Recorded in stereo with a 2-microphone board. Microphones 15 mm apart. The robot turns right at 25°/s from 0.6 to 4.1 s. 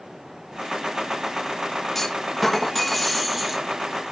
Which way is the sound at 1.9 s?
150° left.